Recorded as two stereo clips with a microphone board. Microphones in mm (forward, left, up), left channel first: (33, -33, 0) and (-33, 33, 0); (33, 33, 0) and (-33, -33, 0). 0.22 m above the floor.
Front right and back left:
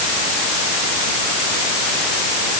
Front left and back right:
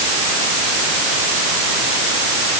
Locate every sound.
Only background noise.